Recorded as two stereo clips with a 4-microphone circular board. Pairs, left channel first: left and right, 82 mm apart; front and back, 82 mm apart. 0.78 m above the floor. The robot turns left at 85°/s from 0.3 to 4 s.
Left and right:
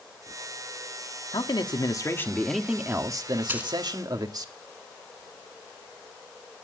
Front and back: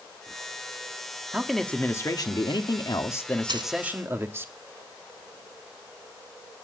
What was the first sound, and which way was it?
A man speaking, 105° left.